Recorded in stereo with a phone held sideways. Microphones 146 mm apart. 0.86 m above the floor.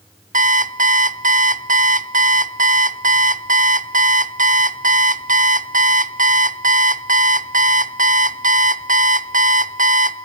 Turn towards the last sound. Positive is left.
turn(degrees=-60)  # may be behind; listen again after turning